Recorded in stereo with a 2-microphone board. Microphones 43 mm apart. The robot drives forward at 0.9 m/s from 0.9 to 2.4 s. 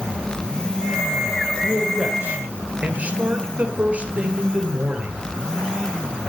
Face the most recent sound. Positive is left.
turn(degrees=-30)  # may be behind; listen again after turning